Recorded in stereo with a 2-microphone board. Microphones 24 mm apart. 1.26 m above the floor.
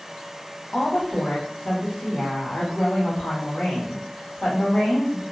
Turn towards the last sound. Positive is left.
turn(degrees=80)